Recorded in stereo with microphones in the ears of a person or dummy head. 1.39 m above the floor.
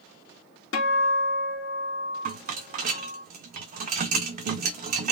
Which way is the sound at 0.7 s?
75° left (ahead or behind).